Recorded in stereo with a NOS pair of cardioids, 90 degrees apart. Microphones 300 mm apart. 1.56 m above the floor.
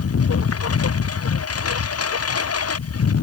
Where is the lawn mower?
45° left; by 3.2 s 50° left.